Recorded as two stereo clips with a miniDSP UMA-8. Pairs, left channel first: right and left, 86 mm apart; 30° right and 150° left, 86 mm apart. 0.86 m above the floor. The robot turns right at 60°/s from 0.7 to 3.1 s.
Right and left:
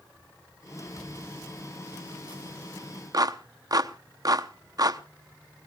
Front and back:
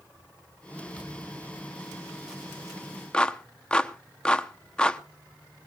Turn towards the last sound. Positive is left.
turn(degrees=50)